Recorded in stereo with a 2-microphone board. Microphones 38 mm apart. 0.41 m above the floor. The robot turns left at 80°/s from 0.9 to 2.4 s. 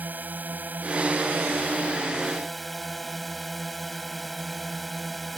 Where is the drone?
60° right; by 5.4 s straight behind.